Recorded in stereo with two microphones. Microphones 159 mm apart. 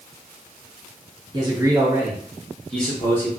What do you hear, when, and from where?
1.3 s a man speaking: 30° right (ahead or behind), 0.8 m; by 3.3 s 15° left (ahead or behind), 1.0 m